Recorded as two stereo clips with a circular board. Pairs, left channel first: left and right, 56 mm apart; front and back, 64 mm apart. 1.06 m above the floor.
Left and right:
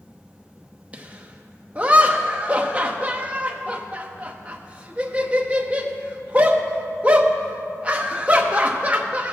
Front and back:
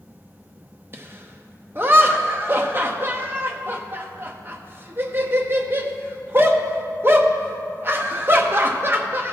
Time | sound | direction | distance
0.9 | laughter | 145° right | 0.8 m